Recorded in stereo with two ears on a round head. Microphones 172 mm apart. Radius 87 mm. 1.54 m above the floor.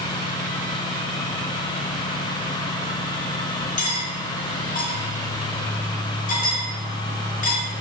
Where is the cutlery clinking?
50° left (ahead or behind), 3.5 m.